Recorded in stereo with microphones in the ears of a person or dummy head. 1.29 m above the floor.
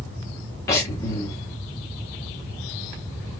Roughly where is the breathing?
Left.